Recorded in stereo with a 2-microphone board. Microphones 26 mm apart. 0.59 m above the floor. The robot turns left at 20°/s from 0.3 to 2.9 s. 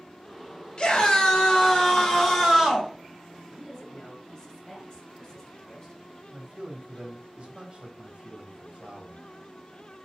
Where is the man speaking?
45° right (ahead or behind), 3 m.